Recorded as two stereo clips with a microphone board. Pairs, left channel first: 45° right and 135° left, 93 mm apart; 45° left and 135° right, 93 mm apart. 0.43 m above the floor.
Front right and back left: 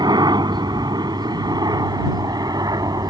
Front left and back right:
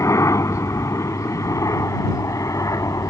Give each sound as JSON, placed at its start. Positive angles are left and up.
{"t": 0.0, "sound": "a helicopter", "azimuth_deg": 100}